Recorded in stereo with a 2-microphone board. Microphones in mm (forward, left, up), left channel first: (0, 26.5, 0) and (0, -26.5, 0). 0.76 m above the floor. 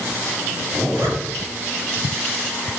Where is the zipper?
60° right (ahead or behind), 4 m.